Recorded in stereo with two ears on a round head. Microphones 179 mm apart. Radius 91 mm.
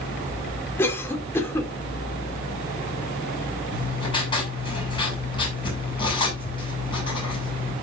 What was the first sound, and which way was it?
A cough, 10° left (ahead or behind).